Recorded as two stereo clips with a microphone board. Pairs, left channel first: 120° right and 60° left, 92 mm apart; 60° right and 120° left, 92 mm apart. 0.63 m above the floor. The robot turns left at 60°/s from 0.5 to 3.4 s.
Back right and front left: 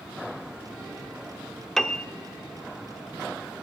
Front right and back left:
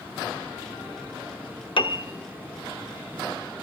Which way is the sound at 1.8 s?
35° right.